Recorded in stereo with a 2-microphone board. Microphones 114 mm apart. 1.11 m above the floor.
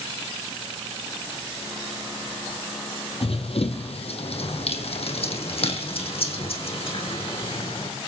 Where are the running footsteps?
60° left (ahead or behind), 2 m.